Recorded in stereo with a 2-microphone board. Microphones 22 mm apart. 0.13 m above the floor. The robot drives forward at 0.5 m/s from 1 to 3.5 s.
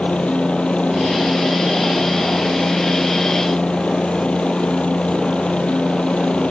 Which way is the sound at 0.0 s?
65° left (ahead or behind).